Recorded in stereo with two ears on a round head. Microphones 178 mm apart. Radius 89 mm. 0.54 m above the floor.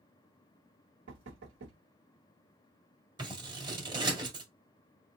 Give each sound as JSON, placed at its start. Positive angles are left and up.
{"t": 1.1, "sound": "knocking", "side_deg": -65, "distance_m": 1.2}
{"t": 3.2, "sound": "scissors", "side_deg": -25, "distance_m": 1.4}